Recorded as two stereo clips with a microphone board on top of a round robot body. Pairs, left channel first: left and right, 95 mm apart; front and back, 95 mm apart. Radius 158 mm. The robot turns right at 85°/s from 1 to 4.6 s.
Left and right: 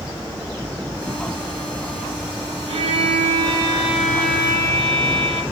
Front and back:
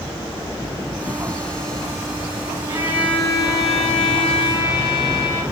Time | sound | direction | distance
2.7 | a violin | 120° right | 2 m